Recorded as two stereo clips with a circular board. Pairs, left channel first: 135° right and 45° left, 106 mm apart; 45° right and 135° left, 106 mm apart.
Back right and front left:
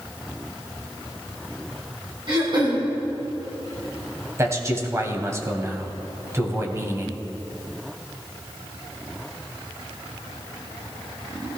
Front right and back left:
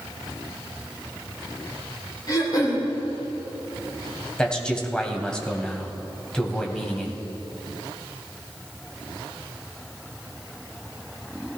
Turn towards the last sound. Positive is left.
turn(degrees=30)